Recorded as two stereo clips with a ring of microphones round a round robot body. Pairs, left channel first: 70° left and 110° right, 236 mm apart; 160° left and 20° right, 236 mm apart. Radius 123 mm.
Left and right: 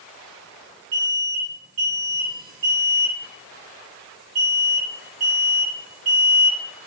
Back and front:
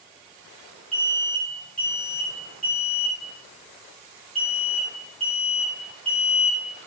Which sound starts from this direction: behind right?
An alarm, at 0.9 s.